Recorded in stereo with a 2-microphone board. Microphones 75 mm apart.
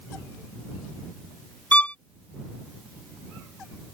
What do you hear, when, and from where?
1.7 s a violin: 20° left (ahead or behind)